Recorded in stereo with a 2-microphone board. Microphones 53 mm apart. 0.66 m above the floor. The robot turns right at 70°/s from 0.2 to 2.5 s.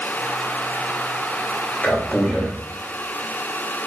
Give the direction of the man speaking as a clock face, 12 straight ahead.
8 o'clock.